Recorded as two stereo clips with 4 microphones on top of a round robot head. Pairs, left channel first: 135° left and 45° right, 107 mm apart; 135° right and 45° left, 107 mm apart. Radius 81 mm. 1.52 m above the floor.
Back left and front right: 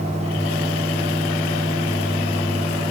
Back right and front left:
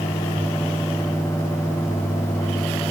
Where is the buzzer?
No buzzer in this recording.